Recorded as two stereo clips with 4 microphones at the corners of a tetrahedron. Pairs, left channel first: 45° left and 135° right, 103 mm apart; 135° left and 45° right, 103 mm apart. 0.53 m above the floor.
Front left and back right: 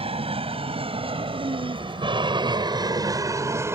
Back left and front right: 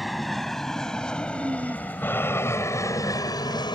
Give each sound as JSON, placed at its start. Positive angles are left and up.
{"t": 0.0, "sound": "an aircraft", "azimuth_deg": -135}
{"t": 1.3, "sound": "a woman speaking", "azimuth_deg": -110}